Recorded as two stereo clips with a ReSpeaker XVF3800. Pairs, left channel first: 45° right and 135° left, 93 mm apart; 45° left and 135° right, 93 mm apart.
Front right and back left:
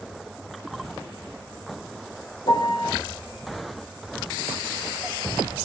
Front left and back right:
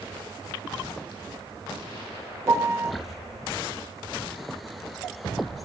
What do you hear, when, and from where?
2.5 s a piano: 75° right, 1.8 m